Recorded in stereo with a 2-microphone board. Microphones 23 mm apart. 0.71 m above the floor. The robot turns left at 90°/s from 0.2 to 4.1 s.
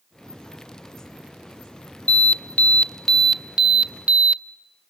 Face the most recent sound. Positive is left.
turn(degrees=-80)